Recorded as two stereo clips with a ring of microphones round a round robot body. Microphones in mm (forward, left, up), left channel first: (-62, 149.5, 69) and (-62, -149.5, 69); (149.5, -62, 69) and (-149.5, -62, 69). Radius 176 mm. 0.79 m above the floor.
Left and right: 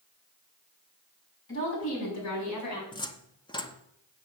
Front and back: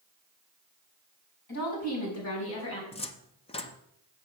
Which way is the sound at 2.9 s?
40° left.